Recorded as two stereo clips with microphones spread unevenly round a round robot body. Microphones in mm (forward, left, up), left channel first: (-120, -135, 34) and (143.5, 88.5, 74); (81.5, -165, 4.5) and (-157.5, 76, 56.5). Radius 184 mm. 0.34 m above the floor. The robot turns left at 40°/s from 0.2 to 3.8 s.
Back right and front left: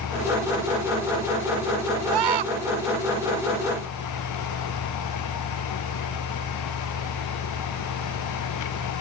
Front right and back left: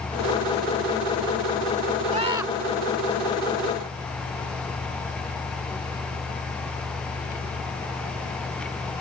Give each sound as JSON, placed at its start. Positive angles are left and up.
{"t": 2.1, "sound": "a scream", "azimuth_deg": 65}